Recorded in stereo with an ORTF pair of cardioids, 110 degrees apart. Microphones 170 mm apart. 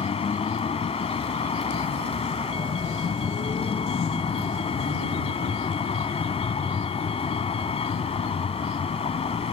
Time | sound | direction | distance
0.0 | a vehicle | 35° left | ?